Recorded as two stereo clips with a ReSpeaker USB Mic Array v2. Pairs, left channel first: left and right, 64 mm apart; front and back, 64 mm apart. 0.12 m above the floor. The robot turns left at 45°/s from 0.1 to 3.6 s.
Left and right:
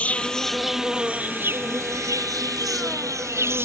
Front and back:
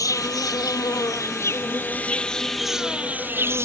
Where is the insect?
20° left; by 3.6 s 135° right.